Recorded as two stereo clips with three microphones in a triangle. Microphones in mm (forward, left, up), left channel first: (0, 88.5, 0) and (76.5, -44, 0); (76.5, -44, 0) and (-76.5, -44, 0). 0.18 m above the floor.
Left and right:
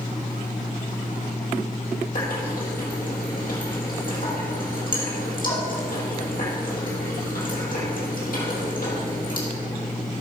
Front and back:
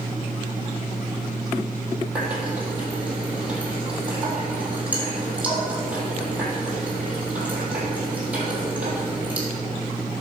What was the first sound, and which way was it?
A running tap, 100° left.